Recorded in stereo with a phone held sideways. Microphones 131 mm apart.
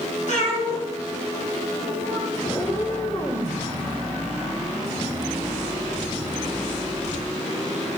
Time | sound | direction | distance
0.3 | a cat meowing | 65° left (ahead or behind) | 3.5 m
2.4 | a cat meowing | 35° left (ahead or behind) | 2 m